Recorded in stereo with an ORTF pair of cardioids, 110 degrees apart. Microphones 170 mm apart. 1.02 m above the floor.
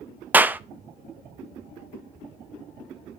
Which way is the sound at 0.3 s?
10° right.